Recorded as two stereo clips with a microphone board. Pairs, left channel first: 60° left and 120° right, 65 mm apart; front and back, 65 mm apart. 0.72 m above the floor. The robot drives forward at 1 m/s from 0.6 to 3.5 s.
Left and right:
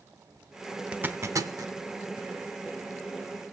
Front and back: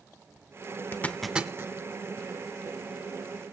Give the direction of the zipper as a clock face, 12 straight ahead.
2 o'clock.